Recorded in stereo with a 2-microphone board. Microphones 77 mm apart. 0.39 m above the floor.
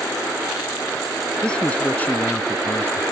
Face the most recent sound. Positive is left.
turn(degrees=30)  # may be behind; listen again after turning